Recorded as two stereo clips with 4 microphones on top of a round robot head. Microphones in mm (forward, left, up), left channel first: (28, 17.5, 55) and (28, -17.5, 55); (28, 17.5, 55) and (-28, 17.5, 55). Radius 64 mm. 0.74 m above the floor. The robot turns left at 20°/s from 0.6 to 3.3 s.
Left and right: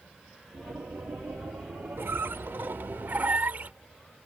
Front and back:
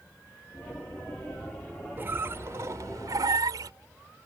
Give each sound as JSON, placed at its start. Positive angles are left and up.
{"t": 2.0, "sound": "a squeak", "azimuth_deg": -120}